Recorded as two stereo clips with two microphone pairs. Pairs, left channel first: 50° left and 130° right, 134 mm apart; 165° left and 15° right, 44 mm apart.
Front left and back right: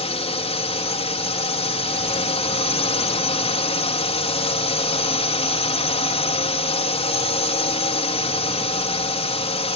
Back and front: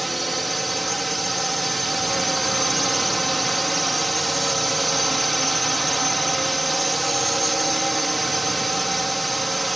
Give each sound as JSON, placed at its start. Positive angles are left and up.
{"t": 0.0, "sound": "a drone", "azimuth_deg": 75}